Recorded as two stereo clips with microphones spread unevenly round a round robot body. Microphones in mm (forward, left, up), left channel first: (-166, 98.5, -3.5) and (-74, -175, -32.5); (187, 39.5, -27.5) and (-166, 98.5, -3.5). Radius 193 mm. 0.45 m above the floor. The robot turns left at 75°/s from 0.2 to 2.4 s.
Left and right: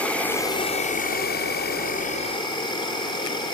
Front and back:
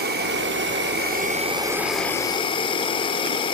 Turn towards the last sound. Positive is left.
turn(degrees=40)